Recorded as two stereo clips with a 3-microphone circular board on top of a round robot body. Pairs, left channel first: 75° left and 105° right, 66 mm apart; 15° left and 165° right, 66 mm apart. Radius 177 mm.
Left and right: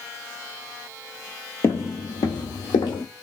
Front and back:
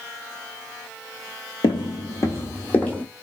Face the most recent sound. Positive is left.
turn(degrees=90)